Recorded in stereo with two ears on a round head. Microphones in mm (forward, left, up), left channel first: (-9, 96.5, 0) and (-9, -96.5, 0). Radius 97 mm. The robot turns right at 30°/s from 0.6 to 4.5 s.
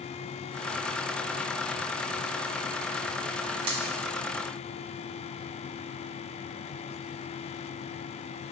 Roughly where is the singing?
No singing in this recording.